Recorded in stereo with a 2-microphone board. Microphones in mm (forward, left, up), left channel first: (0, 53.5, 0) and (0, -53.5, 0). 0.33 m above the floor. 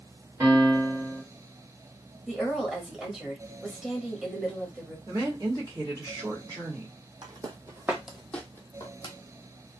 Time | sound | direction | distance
0.4 | a piano | 25° right (ahead or behind) | 1.4 m
2.3 | a woman speaking | 5° right (ahead or behind) | 1.2 m
5.1 | a woman speaking | 35° right (ahead or behind) | 1.4 m
7.2 | footsteps | 40° right (ahead or behind) | 0.8 m